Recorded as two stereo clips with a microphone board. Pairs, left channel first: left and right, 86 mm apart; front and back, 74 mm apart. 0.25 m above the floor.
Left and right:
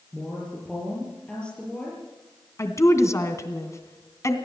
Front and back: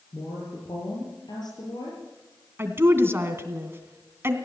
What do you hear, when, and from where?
0.1 s a woman speaking: 10° left, 6 m
2.6 s a woman speaking: 135° left, 2.5 m